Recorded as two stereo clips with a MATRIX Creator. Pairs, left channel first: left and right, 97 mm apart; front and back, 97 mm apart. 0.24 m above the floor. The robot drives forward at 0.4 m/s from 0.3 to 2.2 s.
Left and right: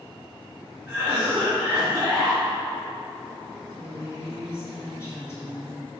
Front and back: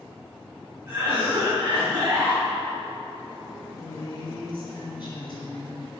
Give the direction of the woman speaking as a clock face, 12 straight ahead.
11 o'clock.